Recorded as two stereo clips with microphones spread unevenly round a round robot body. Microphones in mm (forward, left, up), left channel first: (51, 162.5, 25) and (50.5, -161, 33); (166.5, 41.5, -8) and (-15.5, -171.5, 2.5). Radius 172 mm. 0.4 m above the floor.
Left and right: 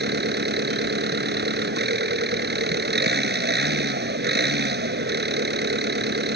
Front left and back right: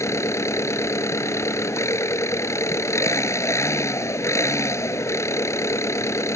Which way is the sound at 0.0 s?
30° right.